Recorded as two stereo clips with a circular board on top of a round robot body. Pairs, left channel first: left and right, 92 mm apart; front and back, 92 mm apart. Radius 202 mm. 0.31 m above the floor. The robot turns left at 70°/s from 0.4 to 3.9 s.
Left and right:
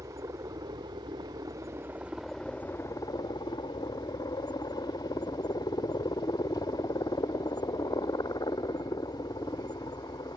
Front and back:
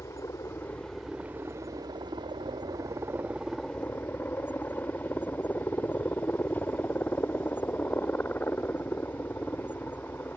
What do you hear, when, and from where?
0.0 s a helicopter: 50° right; by 10.4 s 65° left